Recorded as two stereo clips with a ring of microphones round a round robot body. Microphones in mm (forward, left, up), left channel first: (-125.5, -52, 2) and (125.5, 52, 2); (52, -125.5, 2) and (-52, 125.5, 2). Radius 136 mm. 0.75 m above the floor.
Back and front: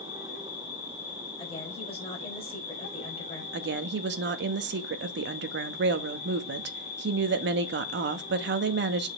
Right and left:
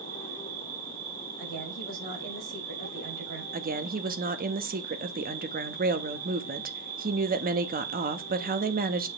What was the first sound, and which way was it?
An insect, 145° left.